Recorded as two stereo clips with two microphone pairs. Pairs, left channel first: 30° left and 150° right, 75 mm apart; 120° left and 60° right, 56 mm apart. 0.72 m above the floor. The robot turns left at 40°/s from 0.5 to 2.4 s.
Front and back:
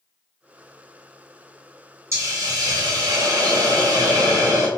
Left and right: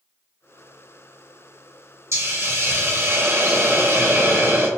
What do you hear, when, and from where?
2.1 s a hiss: 100° right, 1.7 m; by 4.7 s 115° right, 1.7 m